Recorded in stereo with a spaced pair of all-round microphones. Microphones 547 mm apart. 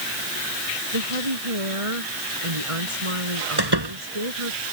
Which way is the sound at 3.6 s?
45° right (ahead or behind).